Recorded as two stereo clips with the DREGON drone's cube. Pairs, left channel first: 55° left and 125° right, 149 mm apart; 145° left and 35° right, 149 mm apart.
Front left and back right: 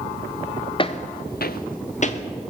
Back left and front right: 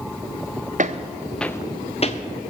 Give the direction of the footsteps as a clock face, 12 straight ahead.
12 o'clock.